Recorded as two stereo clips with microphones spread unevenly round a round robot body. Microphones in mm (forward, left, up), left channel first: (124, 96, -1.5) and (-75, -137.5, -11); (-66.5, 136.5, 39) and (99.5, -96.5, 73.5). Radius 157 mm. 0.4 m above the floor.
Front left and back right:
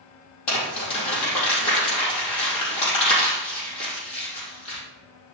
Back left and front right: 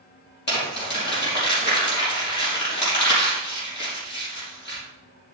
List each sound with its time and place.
0.5 s crumpling: 70° left, 5 m